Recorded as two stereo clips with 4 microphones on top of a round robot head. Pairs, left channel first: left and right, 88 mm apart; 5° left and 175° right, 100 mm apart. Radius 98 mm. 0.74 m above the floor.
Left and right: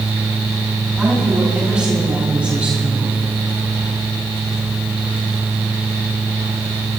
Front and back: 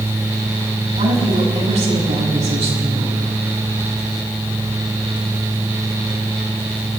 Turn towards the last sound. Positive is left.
turn(degrees=-165)